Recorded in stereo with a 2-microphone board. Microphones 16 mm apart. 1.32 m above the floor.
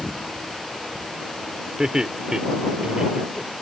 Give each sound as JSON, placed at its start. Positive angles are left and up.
{"t": 1.8, "sound": "laughter", "side_deg": -35}